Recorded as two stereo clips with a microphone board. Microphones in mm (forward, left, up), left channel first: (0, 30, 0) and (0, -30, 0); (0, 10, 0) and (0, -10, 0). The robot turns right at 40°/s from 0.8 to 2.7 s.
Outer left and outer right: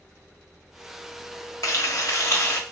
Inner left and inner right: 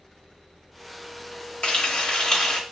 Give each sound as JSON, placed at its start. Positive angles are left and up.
{"t": 1.6, "sound": "frying", "azimuth_deg": 100, "distance_m": 1.1}